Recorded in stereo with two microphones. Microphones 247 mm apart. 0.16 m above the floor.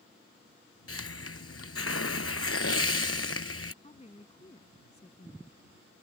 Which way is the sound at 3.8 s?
25° left (ahead or behind).